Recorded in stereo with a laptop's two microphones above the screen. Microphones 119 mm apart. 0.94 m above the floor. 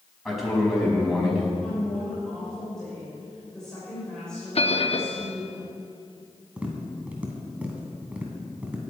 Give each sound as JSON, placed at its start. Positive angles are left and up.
{"t": 0.2, "sound": "a man speaking", "side_deg": 0, "distance_m": 5.5}
{"t": 1.6, "sound": "a woman speaking", "side_deg": 5, "distance_m": 3.0}
{"t": 4.5, "sound": "a bell", "side_deg": 55, "distance_m": 0.7}
{"t": 6.6, "sound": "tapping", "side_deg": -10, "distance_m": 2.5}